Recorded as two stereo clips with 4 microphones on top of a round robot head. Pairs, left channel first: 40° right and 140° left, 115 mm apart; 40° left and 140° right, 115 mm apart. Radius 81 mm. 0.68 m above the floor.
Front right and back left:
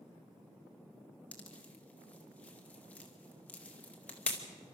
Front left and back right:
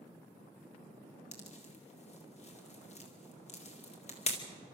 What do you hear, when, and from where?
1.3 s a pop: 35° left, 2.5 m